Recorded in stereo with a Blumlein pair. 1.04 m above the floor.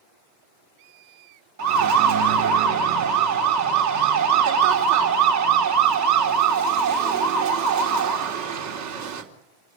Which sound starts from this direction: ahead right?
A siren, at 1.6 s.